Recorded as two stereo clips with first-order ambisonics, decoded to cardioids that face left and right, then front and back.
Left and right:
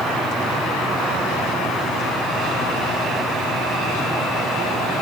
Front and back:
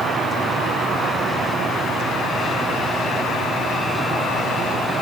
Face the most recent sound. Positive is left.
No sound to turn to.